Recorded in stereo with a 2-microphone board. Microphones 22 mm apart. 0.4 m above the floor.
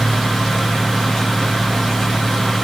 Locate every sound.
Only background noise.